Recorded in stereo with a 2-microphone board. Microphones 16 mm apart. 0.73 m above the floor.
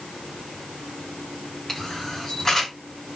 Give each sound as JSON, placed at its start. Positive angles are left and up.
{"t": 1.7, "sound": "a camera shutter", "side_deg": 35, "distance_m": 1.8}